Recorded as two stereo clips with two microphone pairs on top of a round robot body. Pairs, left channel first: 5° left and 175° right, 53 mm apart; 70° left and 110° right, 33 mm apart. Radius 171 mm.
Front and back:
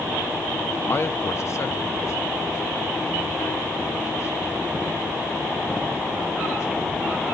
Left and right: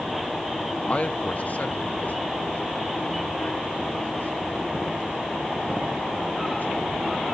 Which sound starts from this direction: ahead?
A man speaking, at 0.9 s.